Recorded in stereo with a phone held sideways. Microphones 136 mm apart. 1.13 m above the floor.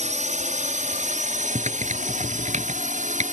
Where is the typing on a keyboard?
60° right (ahead or behind).